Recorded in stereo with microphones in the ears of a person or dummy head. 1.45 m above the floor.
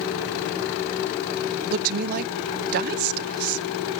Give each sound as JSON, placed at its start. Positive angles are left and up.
{"t": 1.7, "sound": "a woman speaking", "side_deg": -50, "distance_m": 0.6}